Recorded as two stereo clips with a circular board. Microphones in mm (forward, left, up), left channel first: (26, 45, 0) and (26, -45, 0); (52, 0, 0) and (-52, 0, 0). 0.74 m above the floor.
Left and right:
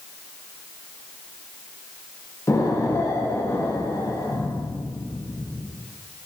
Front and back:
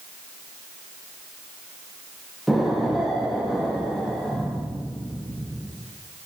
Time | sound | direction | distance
2.5 | an explosion | 90° left | 0.9 m